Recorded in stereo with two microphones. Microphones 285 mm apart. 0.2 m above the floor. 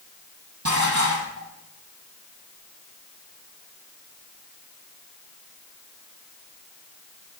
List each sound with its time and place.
0.7 s dishes clattering: 70° right (ahead or behind), 5 m